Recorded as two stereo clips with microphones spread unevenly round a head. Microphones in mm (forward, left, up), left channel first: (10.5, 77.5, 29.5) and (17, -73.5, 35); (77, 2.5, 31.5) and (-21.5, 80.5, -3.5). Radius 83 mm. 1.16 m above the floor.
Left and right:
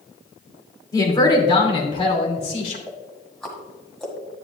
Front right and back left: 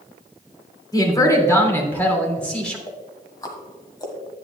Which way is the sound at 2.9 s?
5° left.